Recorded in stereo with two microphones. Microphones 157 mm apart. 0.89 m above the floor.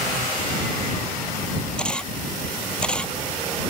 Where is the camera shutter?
5° left (ahead or behind).